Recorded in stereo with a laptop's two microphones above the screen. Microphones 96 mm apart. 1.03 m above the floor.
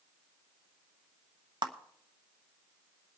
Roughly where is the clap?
Right.